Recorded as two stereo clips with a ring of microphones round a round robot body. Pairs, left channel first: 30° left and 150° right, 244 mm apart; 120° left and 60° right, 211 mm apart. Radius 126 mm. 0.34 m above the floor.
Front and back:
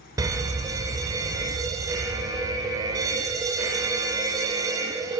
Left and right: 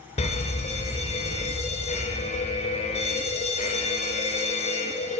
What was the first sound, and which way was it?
A fire alarm, 145° left.